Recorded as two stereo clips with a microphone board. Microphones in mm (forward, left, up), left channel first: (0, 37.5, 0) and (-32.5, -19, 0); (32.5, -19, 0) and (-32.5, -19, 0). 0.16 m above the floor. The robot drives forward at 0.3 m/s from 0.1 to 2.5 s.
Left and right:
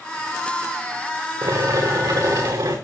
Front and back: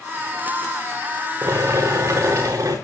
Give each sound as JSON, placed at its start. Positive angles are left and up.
{"t": 1.4, "sound": "boiling", "azimuth_deg": -130, "distance_m": 4.0}